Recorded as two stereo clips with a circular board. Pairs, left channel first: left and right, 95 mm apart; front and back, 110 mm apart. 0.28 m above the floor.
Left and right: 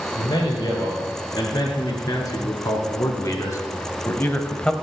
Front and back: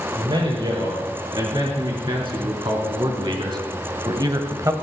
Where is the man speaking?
135° left, 4.5 m; by 4.7 s 160° left, 1.0 m.